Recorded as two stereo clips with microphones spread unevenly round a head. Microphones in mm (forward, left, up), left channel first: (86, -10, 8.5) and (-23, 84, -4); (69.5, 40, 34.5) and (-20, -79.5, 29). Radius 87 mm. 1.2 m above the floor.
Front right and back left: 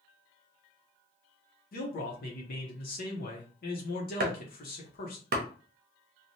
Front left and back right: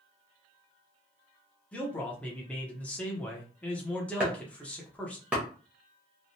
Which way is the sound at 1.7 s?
30° right.